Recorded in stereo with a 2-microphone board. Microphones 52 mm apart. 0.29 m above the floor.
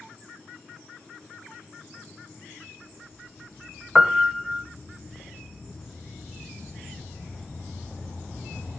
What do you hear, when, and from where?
4.0 s a piano: 10° right (ahead or behind), 0.9 m